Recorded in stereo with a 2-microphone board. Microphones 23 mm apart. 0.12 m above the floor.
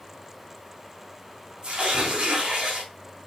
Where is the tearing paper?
55° right (ahead or behind), 4 m.